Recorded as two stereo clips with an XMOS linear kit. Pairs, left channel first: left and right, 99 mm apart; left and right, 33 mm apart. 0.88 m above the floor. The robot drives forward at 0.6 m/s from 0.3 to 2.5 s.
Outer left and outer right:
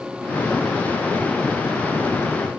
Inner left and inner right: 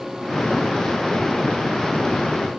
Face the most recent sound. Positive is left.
No sound to turn to.